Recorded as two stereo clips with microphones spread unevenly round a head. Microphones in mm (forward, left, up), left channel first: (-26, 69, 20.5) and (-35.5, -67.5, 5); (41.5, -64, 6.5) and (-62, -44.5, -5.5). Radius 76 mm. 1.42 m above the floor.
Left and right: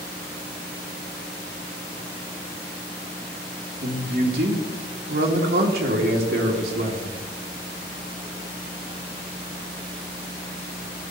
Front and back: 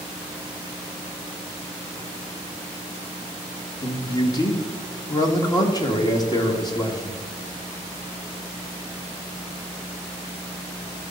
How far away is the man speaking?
About 1.9 m.